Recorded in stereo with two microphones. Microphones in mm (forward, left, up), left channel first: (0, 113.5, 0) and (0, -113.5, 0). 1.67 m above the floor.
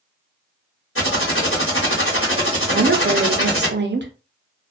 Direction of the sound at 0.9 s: 70° left (ahead or behind).